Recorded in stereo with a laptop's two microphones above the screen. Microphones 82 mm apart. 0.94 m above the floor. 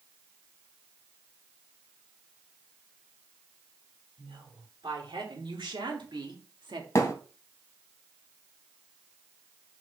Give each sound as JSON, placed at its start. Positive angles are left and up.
{"t": 4.2, "sound": "a woman speaking", "side_deg": -70, "distance_m": 3.5}
{"t": 7.0, "sound": "a thud", "side_deg": 35, "distance_m": 2.5}